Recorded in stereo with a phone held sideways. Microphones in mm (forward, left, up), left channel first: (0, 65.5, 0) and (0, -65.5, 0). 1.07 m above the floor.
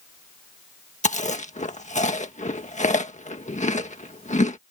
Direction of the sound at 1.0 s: 60° left (ahead or behind).